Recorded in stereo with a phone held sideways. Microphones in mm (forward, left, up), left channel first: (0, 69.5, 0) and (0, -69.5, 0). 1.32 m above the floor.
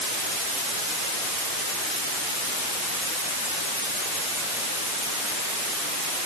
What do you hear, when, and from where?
Only background noise.